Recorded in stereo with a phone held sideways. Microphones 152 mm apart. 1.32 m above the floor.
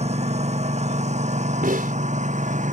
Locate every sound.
0.0 s a lawn mower: 50° right (ahead or behind); by 2.7 s 55° right (ahead or behind)
1.6 s a snare drum: 70° right (ahead or behind)